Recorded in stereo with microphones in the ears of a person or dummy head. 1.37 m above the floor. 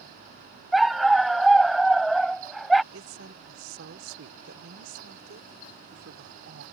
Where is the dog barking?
Centre (ahead or behind).